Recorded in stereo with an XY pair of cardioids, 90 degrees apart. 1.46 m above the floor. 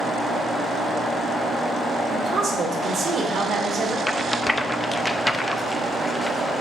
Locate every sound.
2.1 s a woman speaking: 70° right, 2.5 m
4.1 s a rattle: 10° left, 0.6 m